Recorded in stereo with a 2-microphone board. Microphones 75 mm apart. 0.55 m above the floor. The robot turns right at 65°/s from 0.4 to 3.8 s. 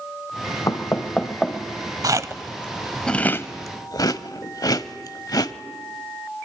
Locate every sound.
0.7 s knocking: 50° left (ahead or behind), 1.9 m; by 1.6 s 10° right (ahead or behind), 1.9 m
2.0 s chewing: 55° right (ahead or behind), 0.9 m; by 5.5 s 60° left (ahead or behind), 0.9 m